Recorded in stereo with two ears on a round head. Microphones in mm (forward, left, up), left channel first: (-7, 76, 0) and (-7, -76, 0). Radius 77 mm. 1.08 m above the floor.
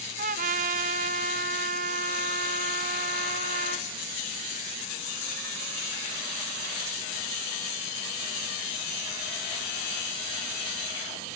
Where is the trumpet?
50° right (ahead or behind), 0.6 m.